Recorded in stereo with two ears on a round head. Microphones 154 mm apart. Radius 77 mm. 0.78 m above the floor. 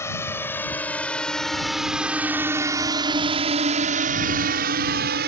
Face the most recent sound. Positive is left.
turn(degrees=-60)  # may be behind; listen again after turning